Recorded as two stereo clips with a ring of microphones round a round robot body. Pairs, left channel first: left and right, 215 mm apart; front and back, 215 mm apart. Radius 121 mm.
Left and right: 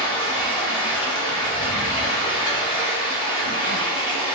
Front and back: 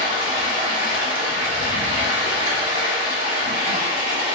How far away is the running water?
About 1.5 m.